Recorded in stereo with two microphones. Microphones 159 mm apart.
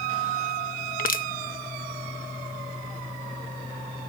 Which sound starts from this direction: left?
Crushing, at 1.0 s.